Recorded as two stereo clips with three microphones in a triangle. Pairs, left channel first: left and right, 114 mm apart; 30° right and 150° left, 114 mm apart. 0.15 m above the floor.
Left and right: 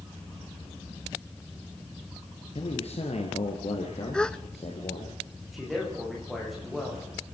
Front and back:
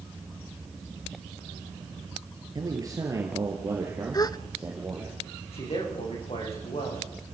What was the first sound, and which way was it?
A man speaking, 100° left.